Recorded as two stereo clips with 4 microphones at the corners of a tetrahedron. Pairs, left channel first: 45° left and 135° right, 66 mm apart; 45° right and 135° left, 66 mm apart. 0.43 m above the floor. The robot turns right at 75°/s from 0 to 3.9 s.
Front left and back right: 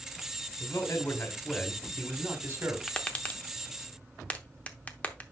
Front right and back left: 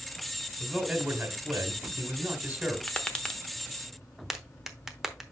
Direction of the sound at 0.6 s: 50° left.